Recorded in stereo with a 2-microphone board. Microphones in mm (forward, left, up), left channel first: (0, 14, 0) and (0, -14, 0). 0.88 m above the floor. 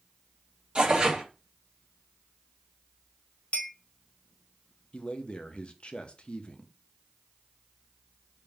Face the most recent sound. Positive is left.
turn(degrees=35)  # may be behind; listen again after turning